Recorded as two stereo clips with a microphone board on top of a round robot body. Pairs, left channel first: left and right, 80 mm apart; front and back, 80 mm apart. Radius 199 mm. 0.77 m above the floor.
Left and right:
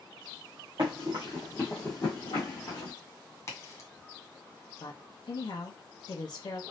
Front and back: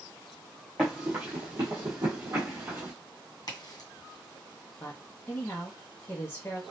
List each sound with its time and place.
0.8 s running footsteps: 85° right, 0.8 m; by 2.9 s 120° left, 1.1 m
3.5 s a crack: 35° left, 1.9 m
4.8 s a woman speaking: 60° left, 0.8 m